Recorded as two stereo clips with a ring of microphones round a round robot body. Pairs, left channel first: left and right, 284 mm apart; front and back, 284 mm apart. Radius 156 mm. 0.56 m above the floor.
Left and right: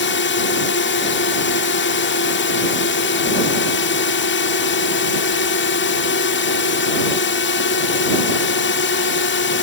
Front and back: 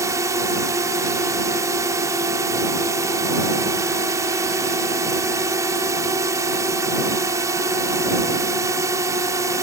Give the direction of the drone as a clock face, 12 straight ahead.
8 o'clock.